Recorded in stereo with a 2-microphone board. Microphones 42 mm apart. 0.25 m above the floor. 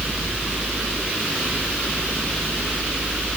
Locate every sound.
Only background noise.